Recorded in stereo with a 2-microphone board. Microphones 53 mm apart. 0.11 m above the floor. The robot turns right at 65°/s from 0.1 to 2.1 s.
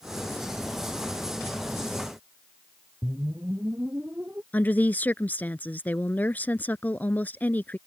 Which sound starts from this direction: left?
A woman speaking, at 4.5 s.